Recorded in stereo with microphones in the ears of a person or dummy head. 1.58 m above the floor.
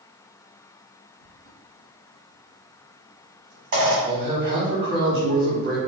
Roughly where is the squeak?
Right.